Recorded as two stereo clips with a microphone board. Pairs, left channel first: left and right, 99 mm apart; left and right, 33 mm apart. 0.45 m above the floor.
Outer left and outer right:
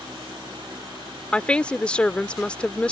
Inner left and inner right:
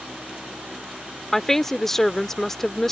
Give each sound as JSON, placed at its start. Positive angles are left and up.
{"t": 1.3, "sound": "a woman speaking", "side_deg": 10}